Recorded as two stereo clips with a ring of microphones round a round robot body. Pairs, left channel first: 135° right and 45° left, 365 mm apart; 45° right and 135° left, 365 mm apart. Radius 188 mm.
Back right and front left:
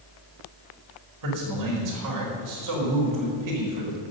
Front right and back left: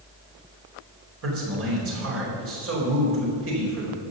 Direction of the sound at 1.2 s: 80° left.